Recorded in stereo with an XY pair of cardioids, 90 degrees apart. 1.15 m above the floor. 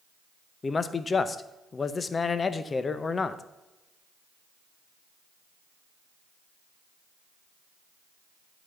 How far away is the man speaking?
About 0.7 m.